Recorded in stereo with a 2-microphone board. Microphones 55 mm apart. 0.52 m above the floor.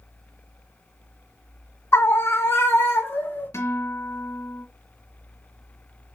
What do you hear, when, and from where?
1.9 s a scream: 50° left (ahead or behind), 2.0 m; by 3.5 s 35° left (ahead or behind), 1.7 m
3.5 s a guitar: 60° left (ahead or behind), 3 m